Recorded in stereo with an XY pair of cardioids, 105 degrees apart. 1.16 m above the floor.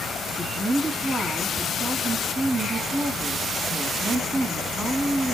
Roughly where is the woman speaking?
Ahead right.